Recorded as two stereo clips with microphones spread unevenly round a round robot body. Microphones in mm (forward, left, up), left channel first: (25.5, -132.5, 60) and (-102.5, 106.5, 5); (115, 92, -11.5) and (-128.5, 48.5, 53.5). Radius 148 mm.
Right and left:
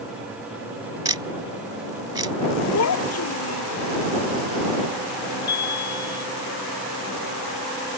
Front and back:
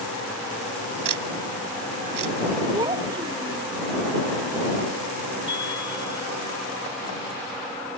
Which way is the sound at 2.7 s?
95° right.